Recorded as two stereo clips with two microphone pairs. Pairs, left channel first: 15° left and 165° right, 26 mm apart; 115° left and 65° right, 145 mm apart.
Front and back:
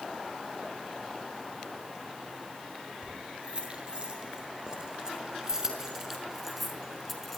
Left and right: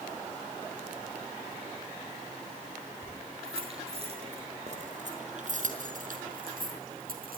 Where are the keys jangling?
115° right, 8 m; by 7.4 s 70° right, 5 m.